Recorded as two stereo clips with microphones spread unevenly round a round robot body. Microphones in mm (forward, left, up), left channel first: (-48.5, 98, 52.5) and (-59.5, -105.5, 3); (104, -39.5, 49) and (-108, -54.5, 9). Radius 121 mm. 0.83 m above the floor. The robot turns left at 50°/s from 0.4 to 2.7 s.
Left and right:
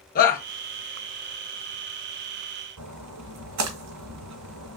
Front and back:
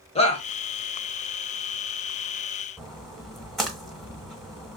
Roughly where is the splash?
Right.